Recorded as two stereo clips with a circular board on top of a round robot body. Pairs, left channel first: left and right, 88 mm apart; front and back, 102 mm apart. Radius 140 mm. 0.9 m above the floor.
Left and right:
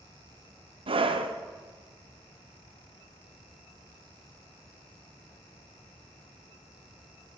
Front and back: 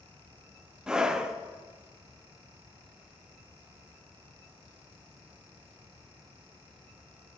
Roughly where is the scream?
Right.